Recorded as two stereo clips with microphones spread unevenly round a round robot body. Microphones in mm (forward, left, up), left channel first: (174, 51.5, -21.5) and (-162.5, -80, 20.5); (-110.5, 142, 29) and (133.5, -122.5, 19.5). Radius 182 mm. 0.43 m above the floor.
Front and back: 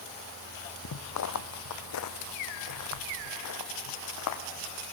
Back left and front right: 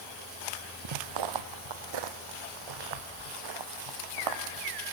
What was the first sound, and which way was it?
Footsteps, 30° right.